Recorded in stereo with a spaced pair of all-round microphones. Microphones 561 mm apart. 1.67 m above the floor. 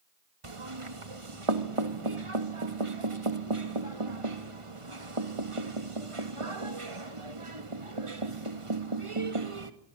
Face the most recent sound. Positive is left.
turn(degrees=-65)  # may be behind; listen again after turning